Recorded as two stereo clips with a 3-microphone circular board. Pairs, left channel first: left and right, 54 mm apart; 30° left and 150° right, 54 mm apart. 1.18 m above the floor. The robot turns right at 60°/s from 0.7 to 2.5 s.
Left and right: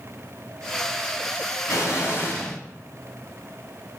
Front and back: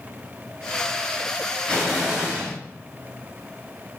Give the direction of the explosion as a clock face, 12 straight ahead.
9 o'clock.